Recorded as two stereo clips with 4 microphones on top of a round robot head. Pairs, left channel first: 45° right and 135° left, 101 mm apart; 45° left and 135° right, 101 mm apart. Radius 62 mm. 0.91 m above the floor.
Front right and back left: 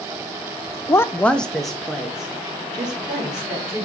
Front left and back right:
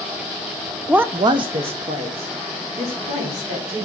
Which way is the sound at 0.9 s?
55° right.